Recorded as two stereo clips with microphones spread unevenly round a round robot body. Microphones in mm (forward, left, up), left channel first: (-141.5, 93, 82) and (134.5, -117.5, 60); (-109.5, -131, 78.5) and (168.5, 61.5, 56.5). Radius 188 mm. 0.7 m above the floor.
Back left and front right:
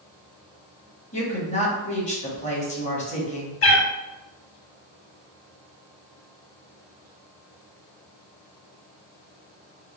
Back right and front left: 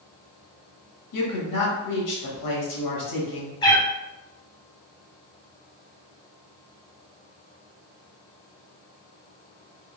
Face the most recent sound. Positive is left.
turn(degrees=145)